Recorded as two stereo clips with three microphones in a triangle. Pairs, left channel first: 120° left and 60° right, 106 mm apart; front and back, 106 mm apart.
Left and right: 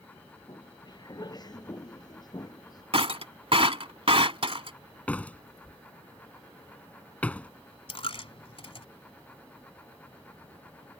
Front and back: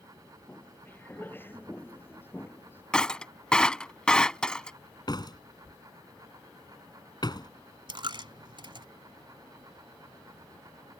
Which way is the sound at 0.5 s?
70° left.